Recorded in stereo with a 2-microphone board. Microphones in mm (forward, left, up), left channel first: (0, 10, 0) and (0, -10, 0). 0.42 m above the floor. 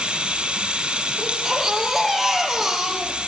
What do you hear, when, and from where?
0.0 s running water: 75° right (ahead or behind), 5.5 m
1.2 s a baby crying: 10° right (ahead or behind), 5 m